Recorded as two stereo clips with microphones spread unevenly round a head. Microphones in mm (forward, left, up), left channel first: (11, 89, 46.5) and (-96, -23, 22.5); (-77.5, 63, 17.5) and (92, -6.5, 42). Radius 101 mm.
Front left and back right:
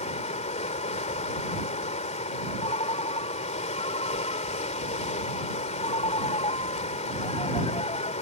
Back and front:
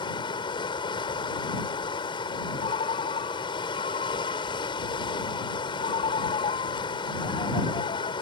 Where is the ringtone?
100° left.